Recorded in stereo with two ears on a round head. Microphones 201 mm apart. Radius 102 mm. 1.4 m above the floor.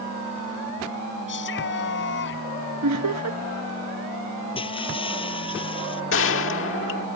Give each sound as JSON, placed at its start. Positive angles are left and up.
{"t": 1.3, "sound": "a shout", "side_deg": 60}
{"t": 2.8, "sound": "laughter", "side_deg": -75}
{"t": 4.5, "sound": "breaking glass", "side_deg": 25}
{"t": 6.1, "sound": "a gunshot", "side_deg": 60}